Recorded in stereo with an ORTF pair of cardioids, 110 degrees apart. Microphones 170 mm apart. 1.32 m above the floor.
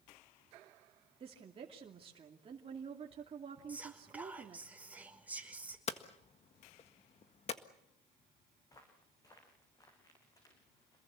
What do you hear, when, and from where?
1.2 s a woman speaking: 35° right, 2.5 m
3.7 s whispering: 10° right, 5 m
5.9 s hammering: 40° left, 1.7 m
8.6 s footsteps: 20° left, 7 m